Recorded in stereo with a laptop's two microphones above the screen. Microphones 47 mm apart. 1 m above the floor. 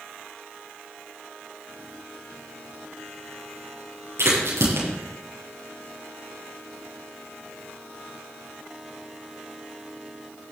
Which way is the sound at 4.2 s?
80° right.